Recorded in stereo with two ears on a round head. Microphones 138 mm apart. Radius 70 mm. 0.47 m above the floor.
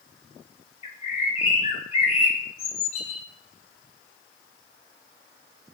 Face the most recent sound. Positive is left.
turn(degrees=40)  # may be behind; listen again after turning